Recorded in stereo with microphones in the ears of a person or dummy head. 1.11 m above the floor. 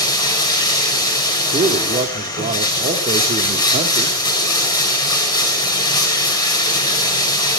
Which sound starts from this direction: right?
A man speaking, at 1.5 s.